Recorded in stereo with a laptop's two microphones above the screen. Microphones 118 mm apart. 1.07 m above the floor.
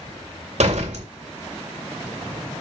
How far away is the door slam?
About 2.5 m.